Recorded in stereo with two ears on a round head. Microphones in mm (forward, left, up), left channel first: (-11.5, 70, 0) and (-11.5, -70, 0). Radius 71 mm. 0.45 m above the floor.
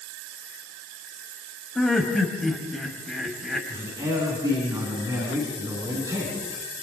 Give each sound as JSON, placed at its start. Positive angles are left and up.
{"t": 1.8, "sound": "laughter", "side_deg": 5, "distance_m": 3.0}
{"t": 3.7, "sound": "a man speaking", "side_deg": -20, "distance_m": 5.0}